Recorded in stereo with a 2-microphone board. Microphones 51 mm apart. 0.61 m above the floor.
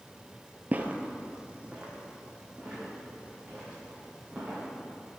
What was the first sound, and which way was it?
Footsteps, 35° right (ahead or behind).